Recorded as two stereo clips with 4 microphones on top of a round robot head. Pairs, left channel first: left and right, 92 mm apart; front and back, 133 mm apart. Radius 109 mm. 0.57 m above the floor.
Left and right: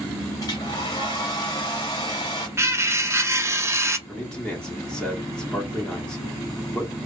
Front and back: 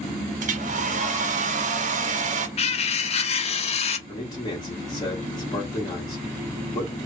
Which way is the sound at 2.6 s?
30° right.